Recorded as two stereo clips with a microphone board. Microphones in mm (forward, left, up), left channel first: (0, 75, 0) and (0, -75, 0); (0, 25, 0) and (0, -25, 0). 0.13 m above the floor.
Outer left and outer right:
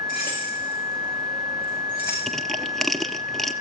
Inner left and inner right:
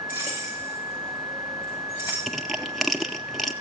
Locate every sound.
0.1 s keys jangling: 70° left (ahead or behind), 10 m; by 2.2 s 80° left, 9 m
2.3 s crushing: centre (ahead or behind), 0.7 m